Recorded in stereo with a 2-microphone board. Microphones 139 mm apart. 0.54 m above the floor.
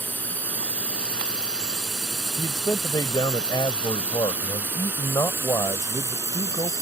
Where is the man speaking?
30° left (ahead or behind).